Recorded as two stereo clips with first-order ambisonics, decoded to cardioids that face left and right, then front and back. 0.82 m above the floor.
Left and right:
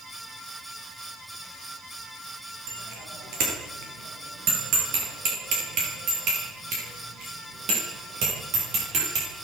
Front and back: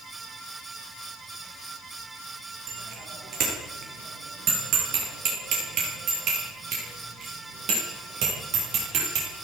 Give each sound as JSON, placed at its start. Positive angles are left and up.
{"t": 2.7, "sound": "a bicycle bell", "azimuth_deg": -130, "distance_m": 10.0}